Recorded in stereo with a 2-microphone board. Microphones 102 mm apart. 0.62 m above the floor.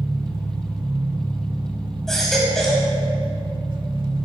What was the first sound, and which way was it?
An engine running, 55° right (ahead or behind).